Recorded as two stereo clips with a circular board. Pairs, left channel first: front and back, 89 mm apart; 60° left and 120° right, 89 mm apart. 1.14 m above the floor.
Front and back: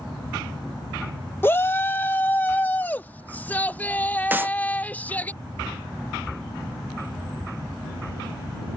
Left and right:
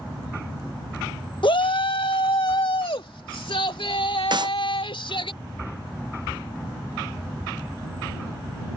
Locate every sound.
1.4 s a shout: 60° left; by 5.3 s 70° left
4.3 s a clap: 115° right